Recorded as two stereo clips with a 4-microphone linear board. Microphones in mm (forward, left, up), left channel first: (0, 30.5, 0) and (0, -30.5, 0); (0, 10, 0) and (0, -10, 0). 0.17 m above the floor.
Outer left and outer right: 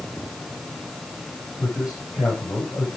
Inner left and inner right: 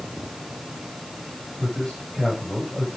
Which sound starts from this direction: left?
A man speaking, at 1.6 s.